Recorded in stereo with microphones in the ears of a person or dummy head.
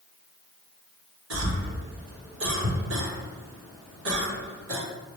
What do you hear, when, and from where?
1.3 s a cough: 70° right (ahead or behind), 1.3 m